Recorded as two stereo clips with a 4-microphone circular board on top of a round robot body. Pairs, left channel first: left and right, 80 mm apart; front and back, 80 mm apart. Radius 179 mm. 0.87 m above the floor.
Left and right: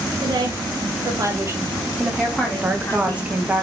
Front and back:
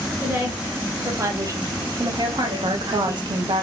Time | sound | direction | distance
0.2 | a woman speaking | 110° right | 1.4 m
2.6 | a woman speaking | 165° right | 0.8 m